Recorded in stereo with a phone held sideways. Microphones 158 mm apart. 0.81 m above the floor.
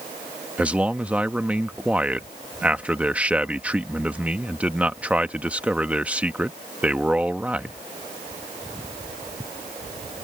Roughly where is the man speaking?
Centre.